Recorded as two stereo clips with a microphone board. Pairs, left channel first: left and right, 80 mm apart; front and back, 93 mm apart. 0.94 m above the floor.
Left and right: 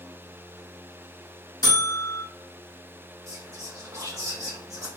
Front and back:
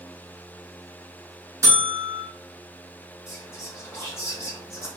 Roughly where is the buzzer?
Behind left.